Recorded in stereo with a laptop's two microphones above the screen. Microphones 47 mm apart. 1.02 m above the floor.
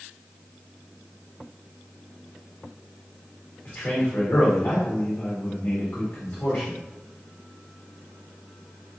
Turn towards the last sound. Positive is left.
turn(degrees=40)  # may be behind; listen again after turning